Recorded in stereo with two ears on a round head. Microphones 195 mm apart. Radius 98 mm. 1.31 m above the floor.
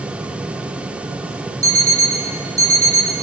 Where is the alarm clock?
15° right (ahead or behind), 0.7 m.